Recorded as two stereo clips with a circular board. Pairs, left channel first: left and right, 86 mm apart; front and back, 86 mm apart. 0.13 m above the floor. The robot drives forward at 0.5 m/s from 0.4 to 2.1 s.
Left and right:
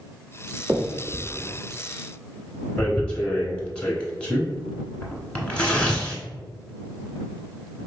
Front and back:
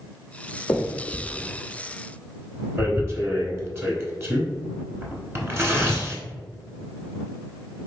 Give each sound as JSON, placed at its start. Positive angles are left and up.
{"t": 0.7, "sound": "a finger snap", "azimuth_deg": -55, "distance_m": 1.0}
{"t": 2.8, "sound": "tearing paper", "azimuth_deg": 150, "distance_m": 0.9}